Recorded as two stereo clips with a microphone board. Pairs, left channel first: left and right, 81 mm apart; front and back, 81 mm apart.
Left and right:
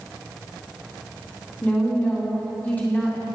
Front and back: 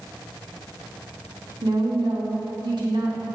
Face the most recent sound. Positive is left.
turn(degrees=160)